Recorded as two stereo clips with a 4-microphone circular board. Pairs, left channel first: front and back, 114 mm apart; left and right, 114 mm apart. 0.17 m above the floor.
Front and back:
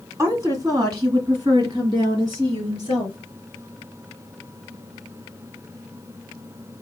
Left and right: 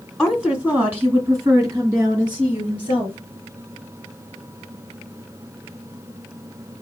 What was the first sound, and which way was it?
A woman speaking, straight behind.